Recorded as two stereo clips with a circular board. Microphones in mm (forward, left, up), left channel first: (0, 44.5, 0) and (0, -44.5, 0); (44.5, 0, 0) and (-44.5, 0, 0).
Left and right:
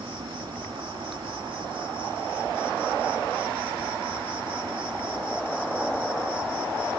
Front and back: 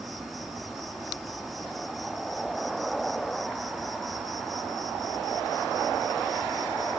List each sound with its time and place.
0.0 s an insect: 90° right